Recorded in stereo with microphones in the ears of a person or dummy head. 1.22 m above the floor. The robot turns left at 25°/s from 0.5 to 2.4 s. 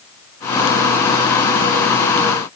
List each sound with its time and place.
Only background noise.